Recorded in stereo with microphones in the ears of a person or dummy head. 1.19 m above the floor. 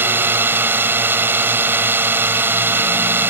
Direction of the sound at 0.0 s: 10° right (ahead or behind).